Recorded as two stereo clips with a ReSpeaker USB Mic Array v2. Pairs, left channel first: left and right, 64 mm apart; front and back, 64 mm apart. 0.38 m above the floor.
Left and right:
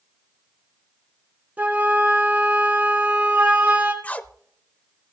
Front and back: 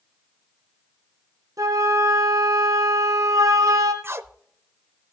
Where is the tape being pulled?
150° left, 0.6 m.